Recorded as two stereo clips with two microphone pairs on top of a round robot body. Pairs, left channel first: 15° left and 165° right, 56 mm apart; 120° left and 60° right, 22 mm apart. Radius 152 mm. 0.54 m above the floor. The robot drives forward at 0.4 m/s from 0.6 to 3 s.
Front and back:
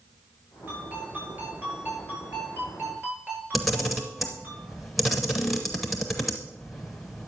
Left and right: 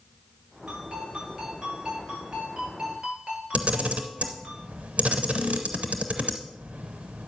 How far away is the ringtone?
About 7.5 m.